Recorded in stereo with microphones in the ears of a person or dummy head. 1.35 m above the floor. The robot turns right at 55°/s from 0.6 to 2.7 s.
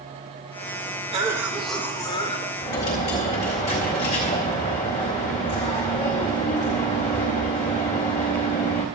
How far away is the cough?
About 1.8 m.